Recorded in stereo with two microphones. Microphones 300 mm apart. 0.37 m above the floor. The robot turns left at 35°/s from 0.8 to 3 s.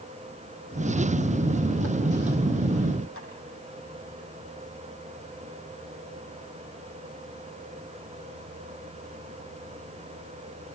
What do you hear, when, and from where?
3.2 s tapping: 45° left (ahead or behind), 7.5 m